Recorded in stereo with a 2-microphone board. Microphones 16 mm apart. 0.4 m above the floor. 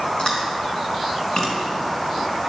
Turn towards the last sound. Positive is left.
turn(degrees=45)  # may be behind; listen again after turning